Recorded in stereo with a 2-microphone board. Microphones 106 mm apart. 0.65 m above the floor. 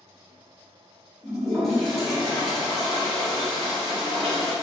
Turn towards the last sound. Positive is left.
turn(degrees=0)  # may be behind; listen again after turning